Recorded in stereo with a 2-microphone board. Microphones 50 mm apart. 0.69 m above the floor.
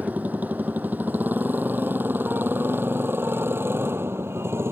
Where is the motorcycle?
35° right (ahead or behind); by 4.7 s 55° right (ahead or behind).